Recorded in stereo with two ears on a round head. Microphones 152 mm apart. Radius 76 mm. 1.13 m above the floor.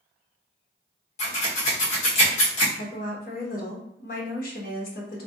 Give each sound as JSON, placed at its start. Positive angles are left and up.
{"t": 1.2, "sound": "scissors", "side_deg": 40, "distance_m": 1.4}
{"t": 2.8, "sound": "a woman speaking", "side_deg": 50, "distance_m": 1.0}